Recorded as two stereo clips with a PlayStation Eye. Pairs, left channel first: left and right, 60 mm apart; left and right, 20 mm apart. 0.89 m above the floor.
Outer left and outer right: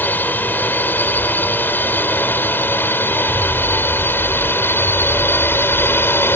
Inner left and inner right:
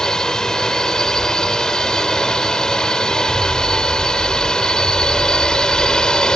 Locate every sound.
0.0 s a drone: 30° left (ahead or behind); by 6.3 s 40° left (ahead or behind)